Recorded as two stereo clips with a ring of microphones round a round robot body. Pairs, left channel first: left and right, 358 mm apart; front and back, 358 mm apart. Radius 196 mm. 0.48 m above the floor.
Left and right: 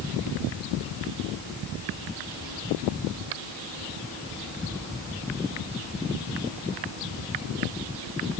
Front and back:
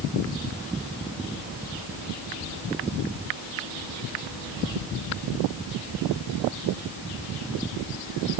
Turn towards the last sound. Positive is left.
No sound to turn to.